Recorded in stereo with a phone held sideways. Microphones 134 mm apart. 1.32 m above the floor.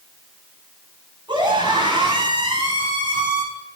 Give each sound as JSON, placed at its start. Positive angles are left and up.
{"t": 1.3, "sound": "a scream", "side_deg": -35, "distance_m": 8.5}